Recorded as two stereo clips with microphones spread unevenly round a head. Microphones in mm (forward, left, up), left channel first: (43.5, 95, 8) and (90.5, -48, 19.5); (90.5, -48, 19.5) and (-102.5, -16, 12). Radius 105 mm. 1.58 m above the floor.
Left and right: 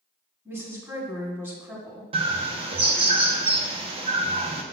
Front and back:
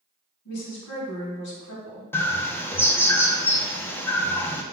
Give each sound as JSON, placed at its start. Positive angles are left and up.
{"t": 0.5, "sound": "a woman speaking", "azimuth_deg": -5, "distance_m": 2.5}
{"t": 2.1, "sound": "a bird", "azimuth_deg": -80, "distance_m": 0.7}